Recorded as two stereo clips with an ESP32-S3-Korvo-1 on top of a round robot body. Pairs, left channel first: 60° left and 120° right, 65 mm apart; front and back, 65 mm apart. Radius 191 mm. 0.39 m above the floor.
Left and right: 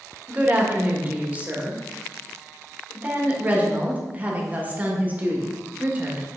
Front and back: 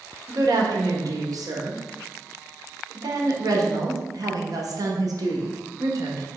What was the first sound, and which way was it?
A woman speaking, straight behind.